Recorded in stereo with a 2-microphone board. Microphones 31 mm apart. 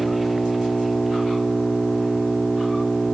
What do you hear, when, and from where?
0.0 s an engine running: centre (ahead or behind)